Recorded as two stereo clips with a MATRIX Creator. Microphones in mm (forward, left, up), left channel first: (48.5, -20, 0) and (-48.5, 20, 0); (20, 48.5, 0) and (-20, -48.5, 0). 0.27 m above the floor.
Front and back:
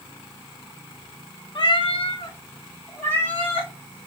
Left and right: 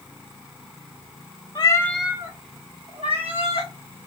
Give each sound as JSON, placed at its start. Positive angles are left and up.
{"t": 1.6, "sound": "a cat meowing", "azimuth_deg": 25, "distance_m": 0.7}